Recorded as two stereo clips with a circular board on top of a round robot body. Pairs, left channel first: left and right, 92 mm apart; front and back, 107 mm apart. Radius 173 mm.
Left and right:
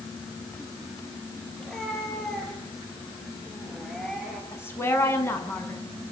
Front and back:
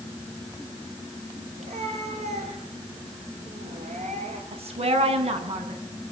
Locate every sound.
1.6 s a cat meowing: 175° left, 7.5 m
4.5 s a woman speaking: 155° left, 7 m